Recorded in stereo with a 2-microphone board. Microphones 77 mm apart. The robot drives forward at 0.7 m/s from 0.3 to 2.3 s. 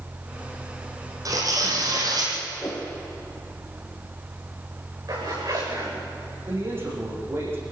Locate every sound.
1.2 s tearing paper: 50° right (ahead or behind), 5.5 m; by 2.4 s 55° right (ahead or behind), 5 m
2.6 s a whoosh: 30° left (ahead or behind), 3.5 m
5.1 s a zipper: 55° right (ahead or behind), 7.5 m
6.5 s a man speaking: 30° right (ahead or behind), 7.5 m